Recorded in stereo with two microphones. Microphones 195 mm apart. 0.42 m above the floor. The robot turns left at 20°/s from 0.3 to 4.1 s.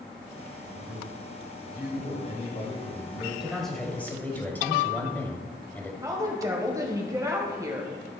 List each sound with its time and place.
0.7 s a man speaking: 80° left, 2 m; by 3.3 s 25° left, 2 m
3.4 s a man speaking: 5° right (ahead or behind), 2 m; by 5.9 s 10° left (ahead or behind), 2 m
6.0 s a woman speaking: 20° right (ahead or behind), 1.9 m